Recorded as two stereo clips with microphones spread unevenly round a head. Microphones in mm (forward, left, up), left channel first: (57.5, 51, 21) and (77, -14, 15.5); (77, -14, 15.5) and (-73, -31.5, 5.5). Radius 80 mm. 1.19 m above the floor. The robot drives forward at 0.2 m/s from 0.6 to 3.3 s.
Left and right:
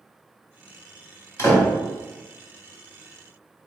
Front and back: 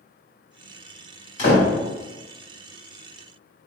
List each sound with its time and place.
1.4 s a door slam: 60° left, 2.0 m